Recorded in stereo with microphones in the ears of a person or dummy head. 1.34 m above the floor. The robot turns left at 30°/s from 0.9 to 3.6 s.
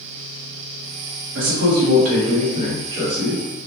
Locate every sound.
1.4 s a man speaking: 105° right, 1.0 m; by 3.4 s 170° right, 1.0 m